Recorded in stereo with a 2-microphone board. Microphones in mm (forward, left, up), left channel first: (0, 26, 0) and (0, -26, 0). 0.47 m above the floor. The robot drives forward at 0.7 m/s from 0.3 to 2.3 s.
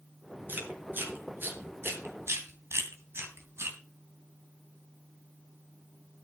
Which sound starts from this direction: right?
Chewing, at 0.5 s.